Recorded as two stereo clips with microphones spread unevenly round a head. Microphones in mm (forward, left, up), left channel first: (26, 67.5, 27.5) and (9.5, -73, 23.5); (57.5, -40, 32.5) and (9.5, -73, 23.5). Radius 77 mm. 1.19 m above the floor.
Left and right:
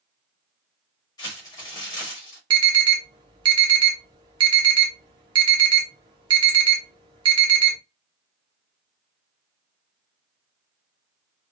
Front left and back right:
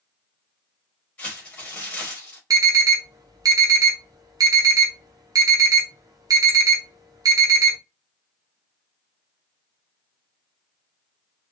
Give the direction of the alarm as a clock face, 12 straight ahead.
5 o'clock.